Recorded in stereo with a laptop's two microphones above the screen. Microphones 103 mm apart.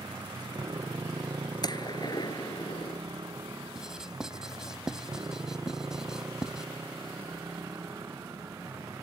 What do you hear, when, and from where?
0.0 s a motorcycle: 45° right (ahead or behind); by 9.1 s 30° right (ahead or behind)
1.6 s a gunshot: 40° left (ahead or behind)
3.8 s writing: 5° right (ahead or behind)